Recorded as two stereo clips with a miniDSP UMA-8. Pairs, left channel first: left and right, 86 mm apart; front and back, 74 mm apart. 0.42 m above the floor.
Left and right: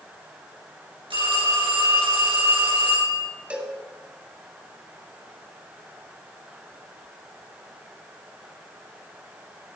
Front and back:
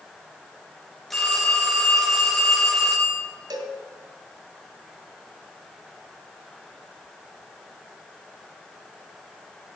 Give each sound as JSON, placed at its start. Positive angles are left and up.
{"t": 1.1, "sound": "a phone ringing", "azimuth_deg": -85, "distance_m": 4.5}
{"t": 3.5, "sound": "a cowbell", "azimuth_deg": -165, "distance_m": 2.0}